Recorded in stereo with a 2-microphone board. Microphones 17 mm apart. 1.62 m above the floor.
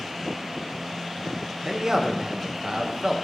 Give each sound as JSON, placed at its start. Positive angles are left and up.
{"t": 1.6, "sound": "a man speaking", "side_deg": -40, "distance_m": 1.9}